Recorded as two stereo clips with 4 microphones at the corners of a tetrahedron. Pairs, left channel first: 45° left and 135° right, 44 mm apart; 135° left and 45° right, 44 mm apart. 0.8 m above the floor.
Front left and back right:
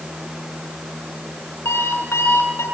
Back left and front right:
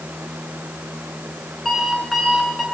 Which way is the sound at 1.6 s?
45° left.